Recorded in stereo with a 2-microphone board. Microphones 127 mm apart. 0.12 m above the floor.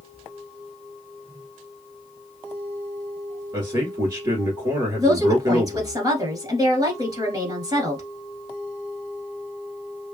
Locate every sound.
3.5 s a man speaking: 30° right (ahead or behind), 1.4 m
5.0 s a woman speaking: 30° right (ahead or behind), 1.5 m